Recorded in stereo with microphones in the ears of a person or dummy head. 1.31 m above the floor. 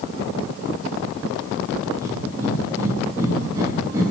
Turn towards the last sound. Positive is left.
turn(degrees=-20)  # may be behind; listen again after turning